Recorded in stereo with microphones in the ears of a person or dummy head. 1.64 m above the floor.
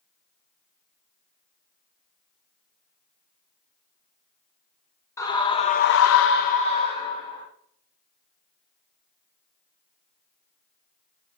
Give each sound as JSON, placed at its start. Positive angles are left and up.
{"t": 5.2, "sound": "a scream", "side_deg": 15, "distance_m": 1.4}